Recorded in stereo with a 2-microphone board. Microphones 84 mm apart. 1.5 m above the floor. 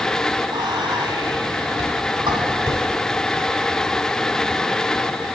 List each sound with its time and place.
0.5 s whispering: 65° right (ahead or behind), 3 m